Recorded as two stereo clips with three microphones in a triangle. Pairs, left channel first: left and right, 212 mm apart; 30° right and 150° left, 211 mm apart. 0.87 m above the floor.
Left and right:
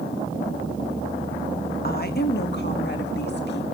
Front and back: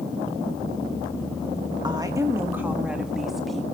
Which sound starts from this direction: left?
A woman speaking, at 1.8 s.